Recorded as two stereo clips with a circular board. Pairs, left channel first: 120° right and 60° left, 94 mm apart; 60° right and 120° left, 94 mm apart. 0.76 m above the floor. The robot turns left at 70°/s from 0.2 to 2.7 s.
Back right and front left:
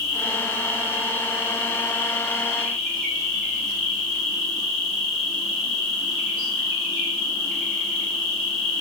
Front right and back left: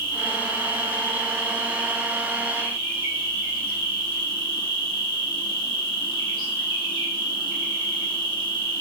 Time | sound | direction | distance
0.0 | an insect | 30° right | 1.0 m